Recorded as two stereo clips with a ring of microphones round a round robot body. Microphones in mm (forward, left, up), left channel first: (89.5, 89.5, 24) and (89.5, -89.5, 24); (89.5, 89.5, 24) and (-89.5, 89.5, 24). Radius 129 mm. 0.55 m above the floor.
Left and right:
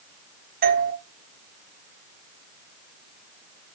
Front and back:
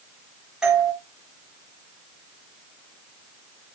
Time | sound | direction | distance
0.6 | a doorbell | 95° right | 1.6 m